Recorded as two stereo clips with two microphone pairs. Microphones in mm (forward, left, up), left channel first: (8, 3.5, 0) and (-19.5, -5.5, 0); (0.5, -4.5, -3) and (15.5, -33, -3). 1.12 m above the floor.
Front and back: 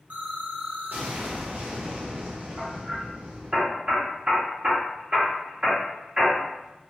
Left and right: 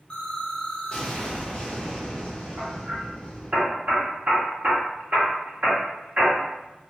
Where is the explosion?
Straight behind, 0.8 m.